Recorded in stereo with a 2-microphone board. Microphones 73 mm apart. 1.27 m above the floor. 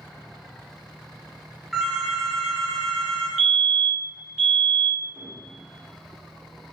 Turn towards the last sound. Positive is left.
turn(degrees=-45)  # may be behind; listen again after turning